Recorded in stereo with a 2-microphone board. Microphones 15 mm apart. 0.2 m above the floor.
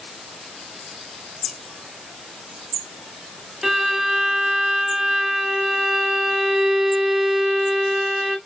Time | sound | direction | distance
3.6 | a violin | 25° right (ahead or behind) | 0.7 m